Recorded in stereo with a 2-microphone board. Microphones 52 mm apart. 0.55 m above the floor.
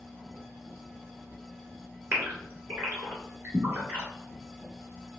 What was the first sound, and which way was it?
A gasp, 35° right (ahead or behind).